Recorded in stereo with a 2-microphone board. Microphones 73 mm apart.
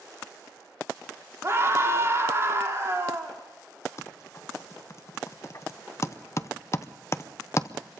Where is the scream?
35° right (ahead or behind), 3 m.